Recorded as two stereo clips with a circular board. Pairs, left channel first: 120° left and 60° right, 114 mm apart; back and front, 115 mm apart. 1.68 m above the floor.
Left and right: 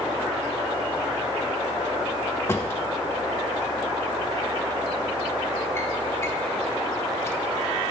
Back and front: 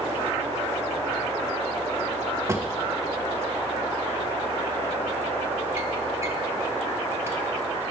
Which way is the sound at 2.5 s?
60° left.